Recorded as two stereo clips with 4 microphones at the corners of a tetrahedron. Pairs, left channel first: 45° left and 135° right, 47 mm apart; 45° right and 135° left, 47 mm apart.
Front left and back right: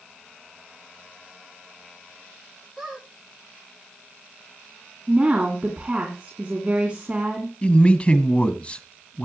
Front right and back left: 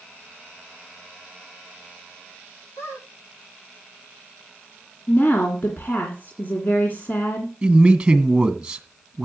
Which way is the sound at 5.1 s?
70° right.